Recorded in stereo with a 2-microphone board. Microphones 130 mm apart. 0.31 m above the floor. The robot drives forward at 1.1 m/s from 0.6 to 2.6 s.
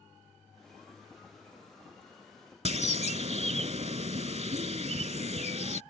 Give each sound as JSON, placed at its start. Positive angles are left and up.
{"t": 2.6, "sound": "a bird", "side_deg": -60}